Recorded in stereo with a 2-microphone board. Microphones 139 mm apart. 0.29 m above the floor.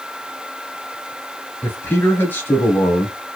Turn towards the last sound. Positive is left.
turn(degrees=15)  # may be behind; listen again after turning